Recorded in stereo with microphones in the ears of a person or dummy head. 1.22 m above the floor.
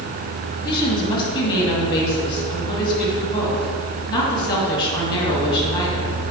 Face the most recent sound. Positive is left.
turn(degrees=25)  # may be behind; listen again after turning